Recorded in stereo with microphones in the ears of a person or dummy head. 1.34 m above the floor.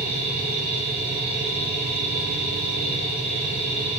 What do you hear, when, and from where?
0.0 s a machine running: 15° right (ahead or behind), 2 m